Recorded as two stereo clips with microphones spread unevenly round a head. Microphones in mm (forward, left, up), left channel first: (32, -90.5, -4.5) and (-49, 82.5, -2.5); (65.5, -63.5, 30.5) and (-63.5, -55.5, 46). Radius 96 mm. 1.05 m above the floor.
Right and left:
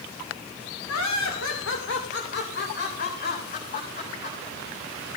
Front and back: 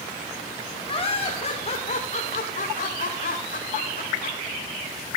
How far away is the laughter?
About 3 m.